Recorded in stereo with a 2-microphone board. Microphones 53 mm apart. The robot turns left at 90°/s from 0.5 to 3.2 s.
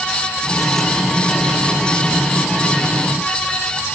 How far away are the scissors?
No scissors in this recording.